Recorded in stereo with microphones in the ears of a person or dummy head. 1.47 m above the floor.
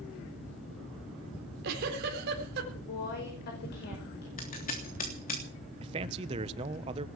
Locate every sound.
1.4 s a giggle: 60° right (ahead or behind), 4 m
2.7 s a woman speaking: 55° left (ahead or behind), 5 m
4.4 s scissors: 45° left (ahead or behind), 3 m
5.8 s a man speaking: 30° right (ahead or behind), 1.2 m